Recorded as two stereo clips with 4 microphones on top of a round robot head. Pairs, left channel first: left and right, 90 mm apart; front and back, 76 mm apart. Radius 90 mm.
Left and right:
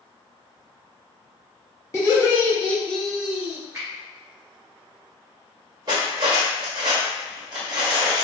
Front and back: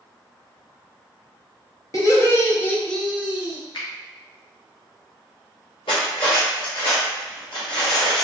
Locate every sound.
1.9 s laughter: 35° left, 1.2 m; by 3.6 s 140° right, 0.8 m
3.7 s a finger snap: 25° right, 0.7 m
5.9 s cutlery clinking: 35° right, 0.6 m